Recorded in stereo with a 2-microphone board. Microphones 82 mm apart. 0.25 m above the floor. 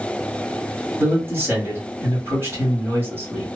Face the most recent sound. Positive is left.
turn(degrees=-30)  # may be behind; listen again after turning